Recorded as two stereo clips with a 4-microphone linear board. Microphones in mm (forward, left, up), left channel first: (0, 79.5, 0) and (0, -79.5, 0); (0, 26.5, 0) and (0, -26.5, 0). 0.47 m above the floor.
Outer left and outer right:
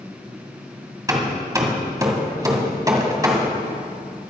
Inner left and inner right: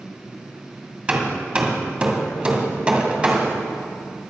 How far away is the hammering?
About 1.9 m.